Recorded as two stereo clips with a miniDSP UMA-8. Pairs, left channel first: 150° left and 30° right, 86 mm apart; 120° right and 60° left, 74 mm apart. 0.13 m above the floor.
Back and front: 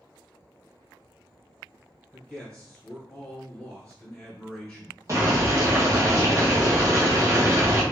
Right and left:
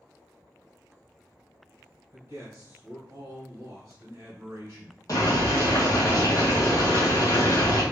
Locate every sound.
2.1 s a man speaking: 95° left, 1.4 m
5.1 s boiling: 85° right, 1.4 m